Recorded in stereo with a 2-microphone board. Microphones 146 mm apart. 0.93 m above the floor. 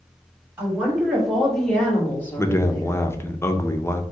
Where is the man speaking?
20° left (ahead or behind), 0.6 m.